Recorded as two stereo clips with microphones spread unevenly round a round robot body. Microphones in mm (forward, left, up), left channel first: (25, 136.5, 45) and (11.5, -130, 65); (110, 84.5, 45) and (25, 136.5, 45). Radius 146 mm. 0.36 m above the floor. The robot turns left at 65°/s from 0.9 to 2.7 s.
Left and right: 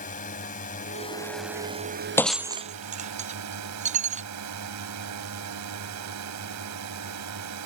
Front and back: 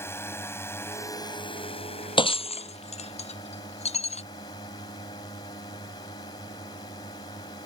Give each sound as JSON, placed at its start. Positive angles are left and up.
{"t": 0.0, "sound": "a drone", "azimuth_deg": 30}
{"t": 2.2, "sound": "breaking glass", "azimuth_deg": 5}